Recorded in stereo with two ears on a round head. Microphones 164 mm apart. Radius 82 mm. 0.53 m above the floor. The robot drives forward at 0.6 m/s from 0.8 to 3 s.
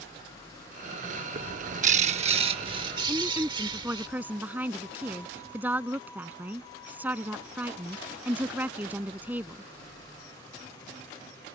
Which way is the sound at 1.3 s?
45° right (ahead or behind).